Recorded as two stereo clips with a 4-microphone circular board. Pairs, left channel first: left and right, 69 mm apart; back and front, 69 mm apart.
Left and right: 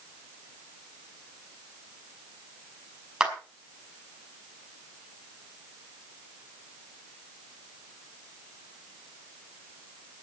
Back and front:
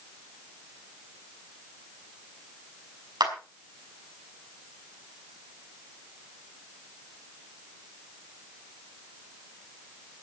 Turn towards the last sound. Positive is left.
turn(degrees=-10)